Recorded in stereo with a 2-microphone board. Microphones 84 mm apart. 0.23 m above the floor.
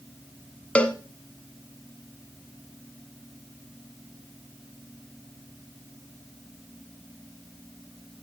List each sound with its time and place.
0.8 s a cowbell: 15° left (ahead or behind), 1.0 m